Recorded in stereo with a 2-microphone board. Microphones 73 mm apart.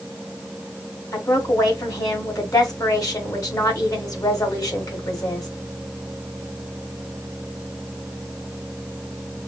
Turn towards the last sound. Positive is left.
turn(degrees=55)  # may be behind; listen again after turning